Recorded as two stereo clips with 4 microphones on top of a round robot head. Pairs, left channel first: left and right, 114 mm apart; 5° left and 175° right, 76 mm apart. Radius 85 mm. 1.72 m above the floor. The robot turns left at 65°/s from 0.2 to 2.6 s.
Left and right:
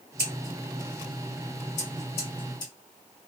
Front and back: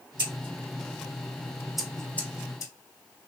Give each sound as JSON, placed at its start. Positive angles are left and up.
{"t": 0.2, "sound": "scissors", "azimuth_deg": -160, "distance_m": 1.0}